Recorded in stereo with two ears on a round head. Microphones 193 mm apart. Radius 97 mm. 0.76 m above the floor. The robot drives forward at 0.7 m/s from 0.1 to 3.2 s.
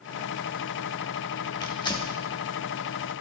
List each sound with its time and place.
1.6 s tearing paper: 20° left (ahead or behind), 2 m; by 2.1 s 25° left (ahead or behind), 1.8 m